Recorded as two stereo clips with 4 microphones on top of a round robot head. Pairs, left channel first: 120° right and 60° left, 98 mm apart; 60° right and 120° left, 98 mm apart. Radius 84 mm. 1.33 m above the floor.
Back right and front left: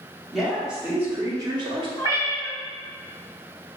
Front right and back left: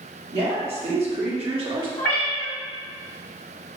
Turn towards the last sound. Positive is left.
turn(degrees=-85)